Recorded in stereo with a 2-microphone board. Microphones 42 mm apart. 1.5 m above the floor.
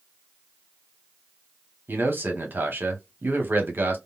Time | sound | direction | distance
1.9 | a man speaking | 55° right (ahead or behind) | 1.1 m